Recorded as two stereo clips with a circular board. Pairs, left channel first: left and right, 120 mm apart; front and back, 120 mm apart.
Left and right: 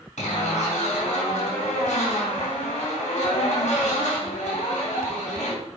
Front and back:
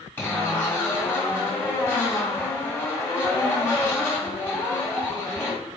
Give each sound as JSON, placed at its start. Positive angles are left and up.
{"t": 0.2, "sound": "a zipper", "azimuth_deg": 75, "distance_m": 3.0}